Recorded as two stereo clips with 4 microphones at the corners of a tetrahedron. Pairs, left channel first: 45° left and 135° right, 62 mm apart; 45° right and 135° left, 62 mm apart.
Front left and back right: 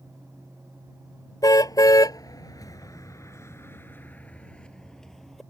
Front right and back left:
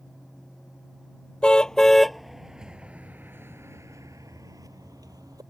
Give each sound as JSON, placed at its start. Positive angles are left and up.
{"t": 1.4, "sound": "a car horn", "azimuth_deg": 30}